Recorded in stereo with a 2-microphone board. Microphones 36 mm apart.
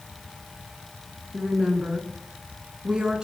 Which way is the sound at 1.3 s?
25° right (ahead or behind).